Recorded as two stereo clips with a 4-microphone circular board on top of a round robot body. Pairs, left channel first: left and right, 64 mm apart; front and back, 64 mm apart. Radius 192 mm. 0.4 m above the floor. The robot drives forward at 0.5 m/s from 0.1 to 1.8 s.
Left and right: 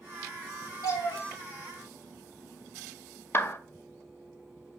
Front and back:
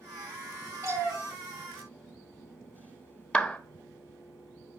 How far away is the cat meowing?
About 1.2 m.